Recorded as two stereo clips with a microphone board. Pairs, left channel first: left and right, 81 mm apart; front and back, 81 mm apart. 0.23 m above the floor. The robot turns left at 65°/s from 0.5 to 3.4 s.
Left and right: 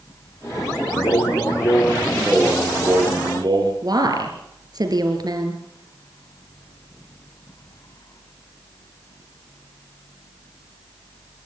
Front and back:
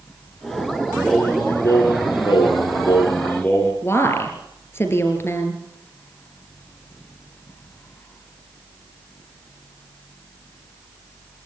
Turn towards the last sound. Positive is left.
turn(degrees=-60)